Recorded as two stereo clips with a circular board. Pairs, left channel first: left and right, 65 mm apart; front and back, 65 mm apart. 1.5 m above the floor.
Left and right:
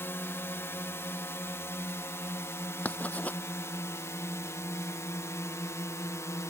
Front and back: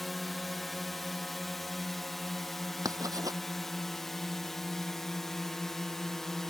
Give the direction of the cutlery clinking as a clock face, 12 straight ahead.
I don't hear cutlery clinking.